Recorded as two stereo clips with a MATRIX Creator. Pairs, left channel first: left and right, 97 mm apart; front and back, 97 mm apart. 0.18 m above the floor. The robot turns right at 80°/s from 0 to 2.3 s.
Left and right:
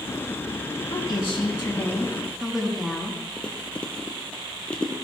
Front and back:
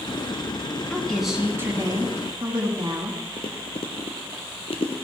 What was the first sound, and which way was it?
A woman speaking, 75° left.